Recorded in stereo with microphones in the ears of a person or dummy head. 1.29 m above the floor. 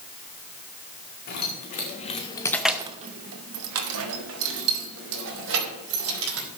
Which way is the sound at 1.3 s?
50° left (ahead or behind).